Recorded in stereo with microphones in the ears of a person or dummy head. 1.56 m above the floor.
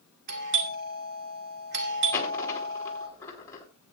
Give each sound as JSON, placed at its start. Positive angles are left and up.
{"t": 0.3, "sound": "a doorbell", "side_deg": -55, "distance_m": 2.0}
{"t": 2.1, "sound": "a dropped coin", "side_deg": 15, "distance_m": 3.5}